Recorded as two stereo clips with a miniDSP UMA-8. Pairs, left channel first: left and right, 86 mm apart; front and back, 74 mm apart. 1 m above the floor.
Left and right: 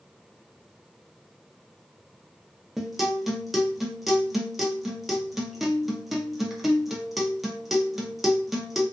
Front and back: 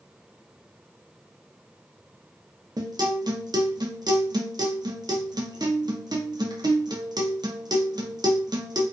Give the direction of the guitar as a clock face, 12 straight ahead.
6 o'clock.